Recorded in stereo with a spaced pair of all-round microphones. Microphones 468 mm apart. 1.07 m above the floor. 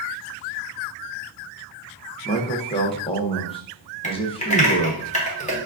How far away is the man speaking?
About 0.7 m.